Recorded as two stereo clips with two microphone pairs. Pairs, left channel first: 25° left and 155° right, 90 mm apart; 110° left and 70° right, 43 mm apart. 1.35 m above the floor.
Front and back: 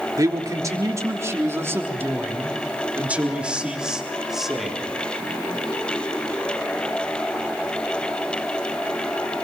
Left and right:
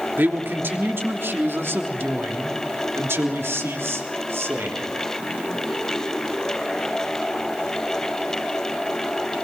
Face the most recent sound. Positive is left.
turn(degrees=-70)